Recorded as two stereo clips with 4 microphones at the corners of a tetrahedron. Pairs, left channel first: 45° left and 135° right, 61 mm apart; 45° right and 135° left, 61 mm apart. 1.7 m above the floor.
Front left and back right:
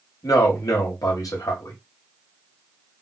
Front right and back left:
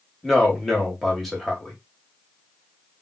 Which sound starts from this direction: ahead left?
A man speaking, at 0.2 s.